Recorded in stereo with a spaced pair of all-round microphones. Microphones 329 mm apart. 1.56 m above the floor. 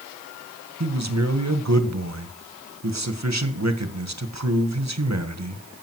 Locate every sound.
0.8 s a man speaking: 55° right (ahead or behind), 1.5 m